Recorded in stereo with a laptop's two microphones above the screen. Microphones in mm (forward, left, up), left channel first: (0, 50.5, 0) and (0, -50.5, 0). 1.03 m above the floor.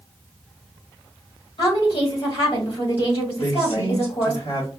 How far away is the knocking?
No knocking in this recording.